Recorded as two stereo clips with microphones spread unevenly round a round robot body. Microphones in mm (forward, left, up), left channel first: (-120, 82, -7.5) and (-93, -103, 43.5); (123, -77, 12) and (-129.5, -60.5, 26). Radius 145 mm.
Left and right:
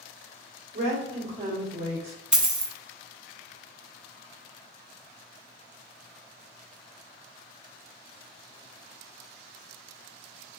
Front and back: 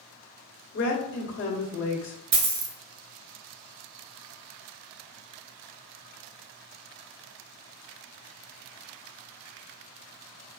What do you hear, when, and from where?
0.7 s a woman speaking: 15° right, 1.6 m
2.3 s a dropped coin: 160° right, 1.0 m